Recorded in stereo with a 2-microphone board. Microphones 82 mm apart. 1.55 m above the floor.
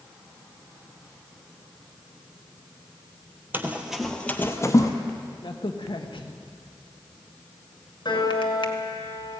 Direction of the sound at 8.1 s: 65° left (ahead or behind).